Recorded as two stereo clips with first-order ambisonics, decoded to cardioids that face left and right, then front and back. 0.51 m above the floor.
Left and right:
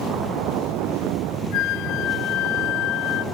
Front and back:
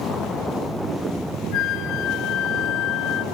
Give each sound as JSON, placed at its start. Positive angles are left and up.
{"t": 1.5, "sound": "a flute", "azimuth_deg": 45, "distance_m": 0.5}